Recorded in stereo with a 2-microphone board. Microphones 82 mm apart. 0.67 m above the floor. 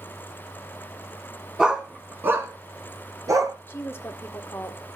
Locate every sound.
1.6 s a dog barking: 5° right (ahead or behind), 2.5 m; by 3.5 s 45° right (ahead or behind), 4.5 m
3.7 s a woman speaking: 30° left (ahead or behind), 1.8 m